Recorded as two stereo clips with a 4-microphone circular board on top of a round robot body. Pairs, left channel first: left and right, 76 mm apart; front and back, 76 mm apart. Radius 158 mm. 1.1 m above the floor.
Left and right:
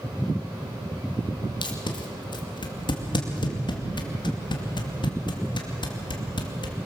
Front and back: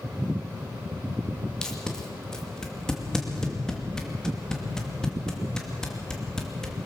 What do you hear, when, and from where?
1.6 s tape being pulled: 85° left, 2.5 m